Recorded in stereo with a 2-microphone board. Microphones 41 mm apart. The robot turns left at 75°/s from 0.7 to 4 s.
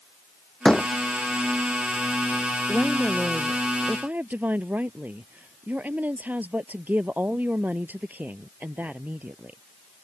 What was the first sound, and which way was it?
A door slam, 15° left (ahead or behind).